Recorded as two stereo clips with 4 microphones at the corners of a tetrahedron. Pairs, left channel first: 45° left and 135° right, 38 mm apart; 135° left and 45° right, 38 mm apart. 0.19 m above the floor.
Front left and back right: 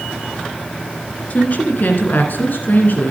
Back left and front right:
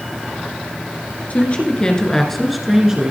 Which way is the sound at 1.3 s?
90° left.